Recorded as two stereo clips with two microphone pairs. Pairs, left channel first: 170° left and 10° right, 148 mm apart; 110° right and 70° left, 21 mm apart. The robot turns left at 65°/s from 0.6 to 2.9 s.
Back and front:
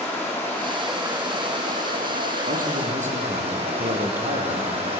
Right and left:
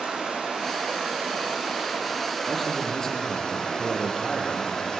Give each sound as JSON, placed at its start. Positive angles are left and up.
{"t": 0.0, "sound": "running water", "azimuth_deg": 95, "distance_m": 6.5}
{"t": 2.5, "sound": "a man speaking", "azimuth_deg": -10, "distance_m": 5.0}